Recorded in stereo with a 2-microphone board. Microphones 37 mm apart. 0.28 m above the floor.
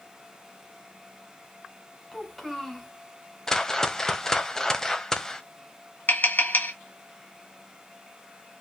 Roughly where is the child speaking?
Centre.